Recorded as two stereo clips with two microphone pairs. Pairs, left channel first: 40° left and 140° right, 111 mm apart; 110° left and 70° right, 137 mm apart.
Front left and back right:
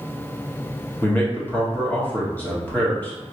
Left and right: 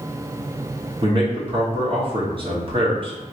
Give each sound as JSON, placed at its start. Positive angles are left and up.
{"t": 1.0, "sound": "a man speaking", "azimuth_deg": -35, "distance_m": 1.2}